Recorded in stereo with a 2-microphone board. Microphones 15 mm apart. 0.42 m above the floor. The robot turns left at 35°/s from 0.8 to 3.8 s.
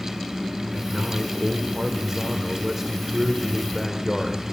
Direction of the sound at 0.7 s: 60° right.